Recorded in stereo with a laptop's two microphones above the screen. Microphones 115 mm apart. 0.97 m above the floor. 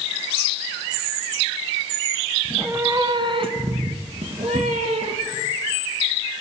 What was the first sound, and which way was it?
A cat meowing, 10° right (ahead or behind).